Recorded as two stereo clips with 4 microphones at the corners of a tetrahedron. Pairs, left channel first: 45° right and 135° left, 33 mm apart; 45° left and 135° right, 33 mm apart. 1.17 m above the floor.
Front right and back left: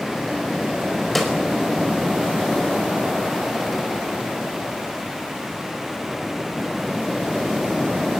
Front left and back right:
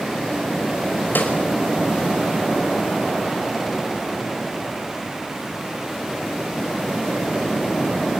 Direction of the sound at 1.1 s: 40° left.